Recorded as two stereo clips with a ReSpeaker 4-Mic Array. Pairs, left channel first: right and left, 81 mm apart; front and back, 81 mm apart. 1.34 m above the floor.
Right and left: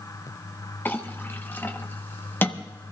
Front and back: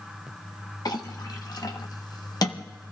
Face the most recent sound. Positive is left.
turn(degrees=-30)